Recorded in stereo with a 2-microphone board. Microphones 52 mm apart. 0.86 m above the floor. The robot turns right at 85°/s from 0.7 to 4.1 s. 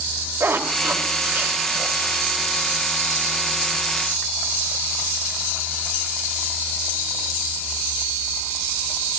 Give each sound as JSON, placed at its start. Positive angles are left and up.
{"t": 0.4, "sound": "a zipper", "side_deg": -65, "distance_m": 3.0}